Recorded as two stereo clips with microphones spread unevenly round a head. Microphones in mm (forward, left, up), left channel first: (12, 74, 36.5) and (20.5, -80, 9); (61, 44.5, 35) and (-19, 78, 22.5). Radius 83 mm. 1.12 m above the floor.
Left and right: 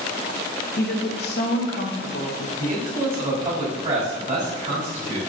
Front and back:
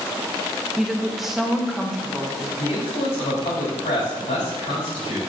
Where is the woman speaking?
70° left, 1.6 m.